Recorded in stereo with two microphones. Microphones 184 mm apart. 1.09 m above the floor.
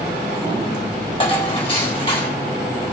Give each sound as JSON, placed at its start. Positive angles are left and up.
{"t": 1.2, "sound": "dishes clattering", "side_deg": 30, "distance_m": 3.0}